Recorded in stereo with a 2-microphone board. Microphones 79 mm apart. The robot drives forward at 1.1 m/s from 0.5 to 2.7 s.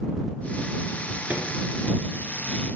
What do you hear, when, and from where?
1.3 s a microwave: 15° right (ahead or behind), 1.9 m